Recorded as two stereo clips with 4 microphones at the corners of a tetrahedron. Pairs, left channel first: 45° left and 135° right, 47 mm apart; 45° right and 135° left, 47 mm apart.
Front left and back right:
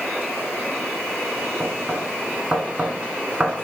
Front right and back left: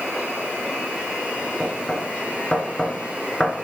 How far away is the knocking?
About 1.5 m.